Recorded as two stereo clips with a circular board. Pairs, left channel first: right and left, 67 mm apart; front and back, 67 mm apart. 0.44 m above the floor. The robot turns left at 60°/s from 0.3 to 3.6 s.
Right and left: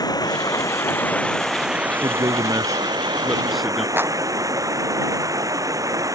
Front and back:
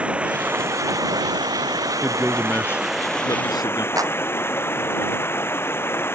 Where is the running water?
105° right; by 6.2 s 55° left.